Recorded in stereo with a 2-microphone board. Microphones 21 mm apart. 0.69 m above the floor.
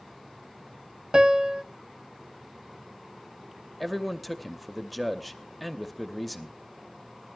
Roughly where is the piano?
Right.